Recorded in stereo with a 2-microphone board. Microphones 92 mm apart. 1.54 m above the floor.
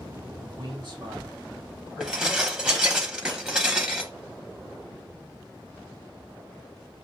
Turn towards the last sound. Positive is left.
turn(degrees=-10)  # may be behind; listen again after turning